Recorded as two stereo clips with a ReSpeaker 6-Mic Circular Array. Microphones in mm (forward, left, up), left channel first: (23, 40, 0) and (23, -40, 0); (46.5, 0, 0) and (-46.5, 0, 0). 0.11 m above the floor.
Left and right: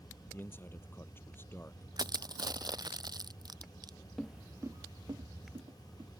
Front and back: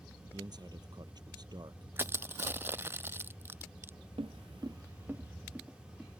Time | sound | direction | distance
0.3 | a man speaking | 150° left | ?
2.0 | crushing | 115° right | ?
4.2 | footsteps | 175° left | ?